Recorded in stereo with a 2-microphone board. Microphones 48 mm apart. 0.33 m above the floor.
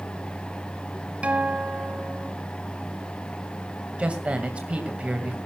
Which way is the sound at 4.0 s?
25° right (ahead or behind).